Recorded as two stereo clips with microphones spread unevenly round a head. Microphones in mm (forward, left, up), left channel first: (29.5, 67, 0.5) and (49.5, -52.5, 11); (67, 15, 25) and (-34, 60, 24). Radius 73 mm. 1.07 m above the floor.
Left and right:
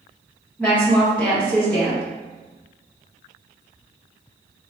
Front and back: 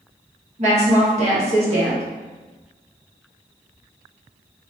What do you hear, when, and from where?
0.6 s a woman speaking: straight behind, 1.4 m